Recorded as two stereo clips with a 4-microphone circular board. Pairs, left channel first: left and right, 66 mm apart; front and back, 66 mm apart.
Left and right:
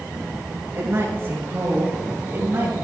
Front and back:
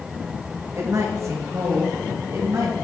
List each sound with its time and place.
0.7 s a woman speaking: 140° right, 5 m; by 2.8 s 150° right, 6.5 m